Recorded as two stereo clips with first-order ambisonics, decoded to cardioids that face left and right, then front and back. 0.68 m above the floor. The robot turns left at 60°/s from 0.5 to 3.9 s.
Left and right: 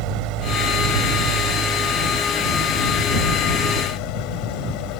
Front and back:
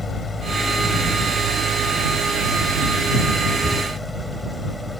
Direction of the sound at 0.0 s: 75° right.